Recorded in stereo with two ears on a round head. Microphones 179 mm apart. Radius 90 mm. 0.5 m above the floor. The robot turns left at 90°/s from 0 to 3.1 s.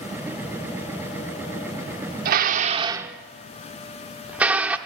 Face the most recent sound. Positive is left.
turn(degrees=-5)  # may be behind; listen again after turning